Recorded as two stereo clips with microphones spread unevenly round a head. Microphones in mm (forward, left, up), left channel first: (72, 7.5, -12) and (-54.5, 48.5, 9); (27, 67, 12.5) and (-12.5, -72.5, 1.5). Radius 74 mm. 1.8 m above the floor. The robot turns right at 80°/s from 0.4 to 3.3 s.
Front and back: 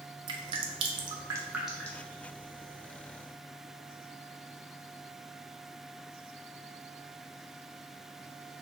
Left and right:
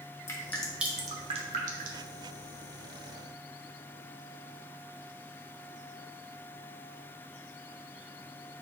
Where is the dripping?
135° left, 0.6 m; by 2.1 s 90° right, 0.6 m.